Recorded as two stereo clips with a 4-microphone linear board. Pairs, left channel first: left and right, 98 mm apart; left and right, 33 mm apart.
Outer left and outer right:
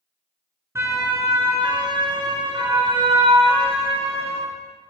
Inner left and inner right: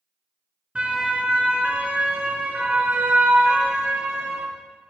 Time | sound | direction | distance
0.8 | a siren | 30° right (ahead or behind) | 3.5 m